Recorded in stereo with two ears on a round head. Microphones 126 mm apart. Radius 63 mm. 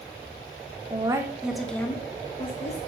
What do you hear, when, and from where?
0.9 s a woman speaking: 30° right (ahead or behind), 1.2 m; by 2.8 s 50° left (ahead or behind), 1.4 m